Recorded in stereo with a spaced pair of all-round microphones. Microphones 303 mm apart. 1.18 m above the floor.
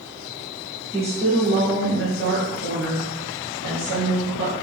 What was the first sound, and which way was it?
A woman speaking, 15° right (ahead or behind).